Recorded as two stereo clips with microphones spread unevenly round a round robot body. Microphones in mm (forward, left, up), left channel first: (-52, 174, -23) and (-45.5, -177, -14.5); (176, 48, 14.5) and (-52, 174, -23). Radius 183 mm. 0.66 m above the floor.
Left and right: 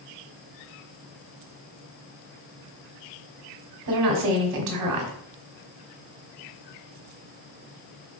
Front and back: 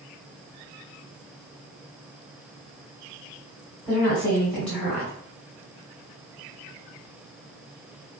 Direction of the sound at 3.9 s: 120° right.